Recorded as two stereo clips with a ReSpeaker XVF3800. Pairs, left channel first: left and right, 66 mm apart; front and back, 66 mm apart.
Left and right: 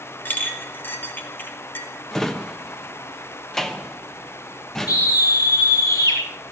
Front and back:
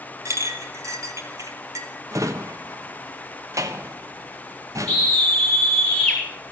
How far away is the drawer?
About 1.0 m.